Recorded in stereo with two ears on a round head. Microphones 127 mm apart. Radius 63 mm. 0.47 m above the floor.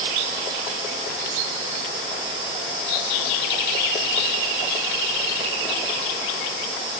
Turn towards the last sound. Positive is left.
No sound to turn to.